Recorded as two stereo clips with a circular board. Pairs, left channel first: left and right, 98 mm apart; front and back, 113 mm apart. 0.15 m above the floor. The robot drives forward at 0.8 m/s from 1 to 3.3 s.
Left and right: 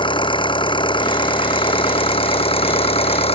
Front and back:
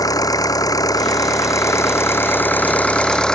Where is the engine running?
55° left; by 3.4 s 85° left.